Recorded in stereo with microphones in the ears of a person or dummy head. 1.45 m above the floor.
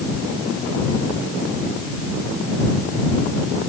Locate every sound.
Only background noise.